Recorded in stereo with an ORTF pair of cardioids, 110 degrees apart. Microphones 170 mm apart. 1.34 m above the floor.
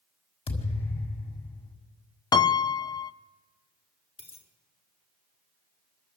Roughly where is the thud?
Ahead left.